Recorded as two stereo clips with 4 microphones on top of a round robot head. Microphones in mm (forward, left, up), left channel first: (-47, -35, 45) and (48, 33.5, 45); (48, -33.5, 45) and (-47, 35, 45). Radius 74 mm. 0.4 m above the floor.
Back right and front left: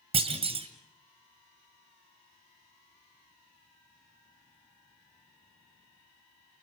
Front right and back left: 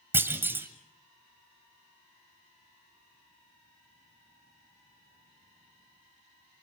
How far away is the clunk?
About 1.8 m.